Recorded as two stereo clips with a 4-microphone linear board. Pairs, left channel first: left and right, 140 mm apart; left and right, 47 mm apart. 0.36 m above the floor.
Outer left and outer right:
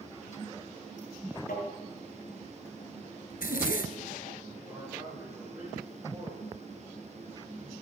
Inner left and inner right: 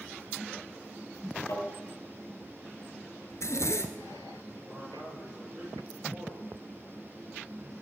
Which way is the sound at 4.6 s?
10° right (ahead or behind).